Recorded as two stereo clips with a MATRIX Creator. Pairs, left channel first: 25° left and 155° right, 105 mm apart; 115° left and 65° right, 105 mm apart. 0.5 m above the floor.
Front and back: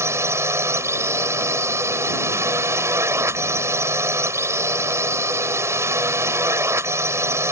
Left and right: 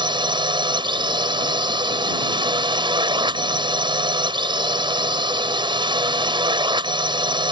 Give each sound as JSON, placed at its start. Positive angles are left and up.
{"t": 0.0, "sound": "a drone", "azimuth_deg": -95}